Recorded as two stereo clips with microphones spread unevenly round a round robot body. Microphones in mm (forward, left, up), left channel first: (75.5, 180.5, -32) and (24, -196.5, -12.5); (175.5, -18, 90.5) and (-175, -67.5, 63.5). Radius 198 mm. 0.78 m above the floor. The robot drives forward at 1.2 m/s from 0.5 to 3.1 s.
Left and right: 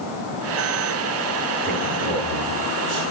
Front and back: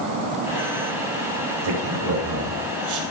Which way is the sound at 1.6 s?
165° right.